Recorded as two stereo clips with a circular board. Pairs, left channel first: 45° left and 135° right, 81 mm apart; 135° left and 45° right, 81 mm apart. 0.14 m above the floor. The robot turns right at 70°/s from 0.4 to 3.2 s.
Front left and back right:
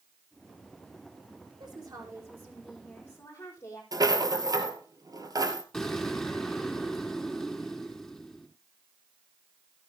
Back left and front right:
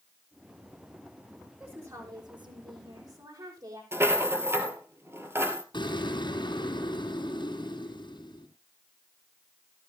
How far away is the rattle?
About 2 m.